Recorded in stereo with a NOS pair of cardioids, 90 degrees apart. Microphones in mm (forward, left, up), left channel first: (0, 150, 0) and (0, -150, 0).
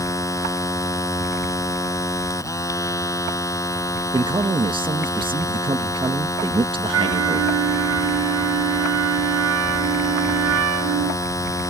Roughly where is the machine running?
Ahead.